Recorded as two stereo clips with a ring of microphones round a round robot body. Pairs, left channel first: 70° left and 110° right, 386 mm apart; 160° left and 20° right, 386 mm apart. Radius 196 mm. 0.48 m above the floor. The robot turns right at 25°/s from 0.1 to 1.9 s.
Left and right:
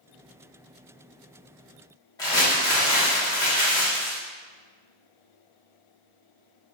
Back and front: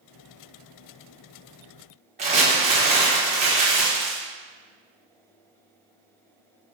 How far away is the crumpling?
About 1.1 m.